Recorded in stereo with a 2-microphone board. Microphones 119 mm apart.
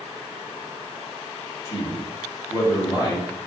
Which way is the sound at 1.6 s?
30° left (ahead or behind).